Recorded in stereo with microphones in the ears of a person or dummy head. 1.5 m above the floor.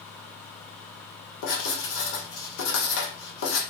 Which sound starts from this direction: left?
Writing, at 1.4 s.